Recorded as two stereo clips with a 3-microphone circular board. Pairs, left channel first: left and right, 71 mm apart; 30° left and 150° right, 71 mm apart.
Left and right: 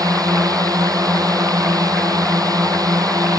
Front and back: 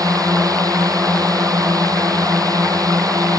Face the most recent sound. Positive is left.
turn(degrees=-120)